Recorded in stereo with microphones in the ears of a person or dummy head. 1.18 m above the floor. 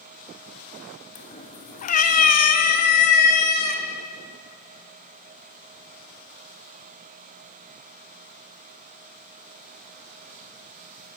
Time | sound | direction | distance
1.1 | a cat meowing | 30° left (ahead or behind) | 1.2 m